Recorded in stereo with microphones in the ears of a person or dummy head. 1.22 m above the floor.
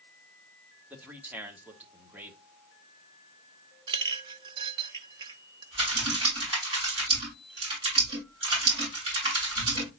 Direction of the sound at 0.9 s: 10° right (ahead or behind).